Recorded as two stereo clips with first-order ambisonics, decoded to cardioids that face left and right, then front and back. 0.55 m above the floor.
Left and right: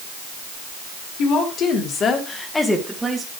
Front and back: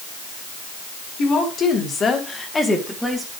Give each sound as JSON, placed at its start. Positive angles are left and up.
{"t": 1.2, "sound": "a woman speaking", "azimuth_deg": 55, "distance_m": 2.0}